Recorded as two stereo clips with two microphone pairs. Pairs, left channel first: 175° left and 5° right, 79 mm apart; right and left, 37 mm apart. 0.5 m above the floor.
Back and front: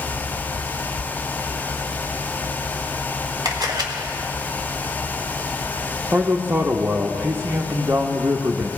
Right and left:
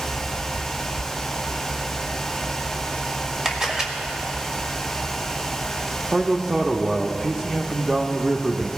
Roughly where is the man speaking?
Ahead left.